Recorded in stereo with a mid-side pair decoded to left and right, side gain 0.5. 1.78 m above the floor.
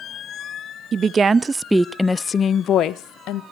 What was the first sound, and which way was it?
A woman speaking, 45° right.